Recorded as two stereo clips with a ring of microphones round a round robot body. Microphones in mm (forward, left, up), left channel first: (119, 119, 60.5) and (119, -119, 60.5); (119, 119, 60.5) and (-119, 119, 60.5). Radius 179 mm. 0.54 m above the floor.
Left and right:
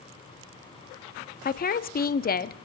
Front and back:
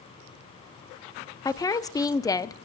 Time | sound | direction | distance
1.4 | a woman speaking | 70° left | 0.7 m